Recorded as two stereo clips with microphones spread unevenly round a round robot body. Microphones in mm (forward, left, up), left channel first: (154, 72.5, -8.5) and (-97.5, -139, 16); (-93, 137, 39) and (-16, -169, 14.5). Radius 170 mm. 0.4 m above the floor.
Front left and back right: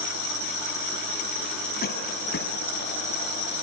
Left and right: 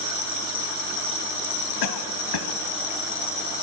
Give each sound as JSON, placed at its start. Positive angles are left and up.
{"t": 1.8, "sound": "a cough", "azimuth_deg": 105, "distance_m": 3.0}